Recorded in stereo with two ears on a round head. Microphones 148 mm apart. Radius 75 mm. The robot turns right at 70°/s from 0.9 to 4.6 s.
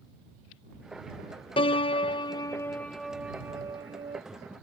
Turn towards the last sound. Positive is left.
turn(degrees=-75)